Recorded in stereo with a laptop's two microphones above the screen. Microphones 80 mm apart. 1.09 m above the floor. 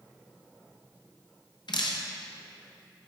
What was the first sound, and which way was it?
Dripping, 65° left (ahead or behind).